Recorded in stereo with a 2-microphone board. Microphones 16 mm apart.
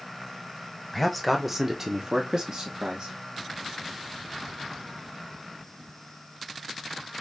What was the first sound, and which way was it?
A man speaking, 10° left (ahead or behind).